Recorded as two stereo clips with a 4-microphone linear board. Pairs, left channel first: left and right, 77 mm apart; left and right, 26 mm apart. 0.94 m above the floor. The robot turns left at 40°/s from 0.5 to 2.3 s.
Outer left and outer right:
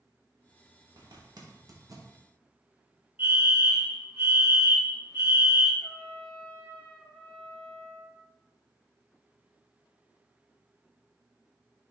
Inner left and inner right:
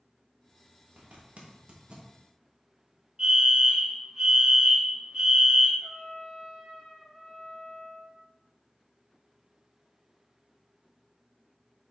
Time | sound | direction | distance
1.0 | a zipper | 60° right (ahead or behind) | 0.9 m
3.2 | a fire alarm | 25° right (ahead or behind) | 1.5 m
5.8 | a trumpet | 30° left (ahead or behind) | 2 m